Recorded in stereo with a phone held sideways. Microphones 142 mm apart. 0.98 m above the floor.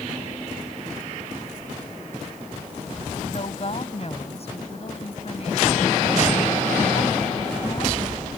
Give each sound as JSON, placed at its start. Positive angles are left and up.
{"t": 3.2, "sound": "a woman speaking", "side_deg": 45}